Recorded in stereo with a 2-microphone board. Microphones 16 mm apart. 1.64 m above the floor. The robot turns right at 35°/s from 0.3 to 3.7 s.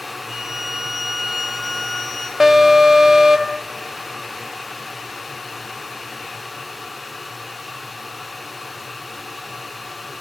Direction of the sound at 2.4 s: 135° right.